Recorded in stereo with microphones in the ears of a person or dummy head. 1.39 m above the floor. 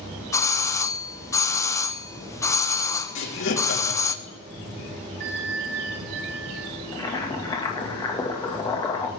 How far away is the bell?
About 2.5 m.